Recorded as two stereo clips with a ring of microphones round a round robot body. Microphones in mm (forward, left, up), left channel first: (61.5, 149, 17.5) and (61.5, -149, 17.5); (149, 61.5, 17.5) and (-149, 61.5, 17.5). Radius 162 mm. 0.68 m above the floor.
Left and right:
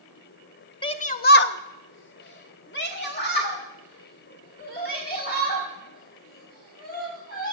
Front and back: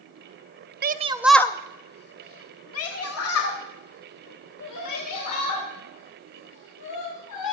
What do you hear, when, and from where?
0.8 s a shout: 155° left, 0.7 m; by 7.5 s 30° left, 5 m